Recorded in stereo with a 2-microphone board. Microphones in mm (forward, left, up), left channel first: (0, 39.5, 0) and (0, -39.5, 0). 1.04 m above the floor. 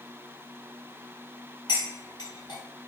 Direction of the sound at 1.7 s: 60° left (ahead or behind).